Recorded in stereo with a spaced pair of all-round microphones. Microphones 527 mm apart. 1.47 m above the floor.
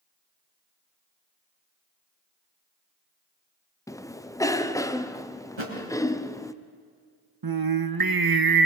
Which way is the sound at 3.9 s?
5° left (ahead or behind).